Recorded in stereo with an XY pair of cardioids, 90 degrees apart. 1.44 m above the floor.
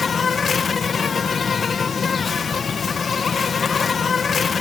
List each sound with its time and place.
0.0 s an insect: 45° left